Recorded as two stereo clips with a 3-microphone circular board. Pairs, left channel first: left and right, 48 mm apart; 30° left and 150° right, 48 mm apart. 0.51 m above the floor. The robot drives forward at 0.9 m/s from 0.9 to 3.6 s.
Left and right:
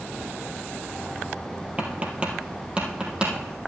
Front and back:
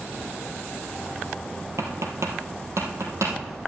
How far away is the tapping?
About 2 m.